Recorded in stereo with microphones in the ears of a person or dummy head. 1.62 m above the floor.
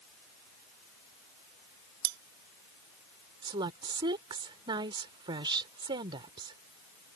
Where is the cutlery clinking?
65° right (ahead or behind).